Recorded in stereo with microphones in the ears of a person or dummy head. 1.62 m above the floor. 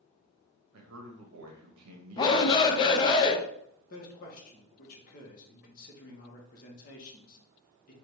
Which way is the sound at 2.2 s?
25° left (ahead or behind).